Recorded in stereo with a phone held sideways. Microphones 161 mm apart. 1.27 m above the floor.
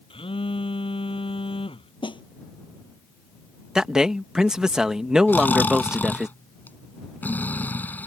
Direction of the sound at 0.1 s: 35° left (ahead or behind).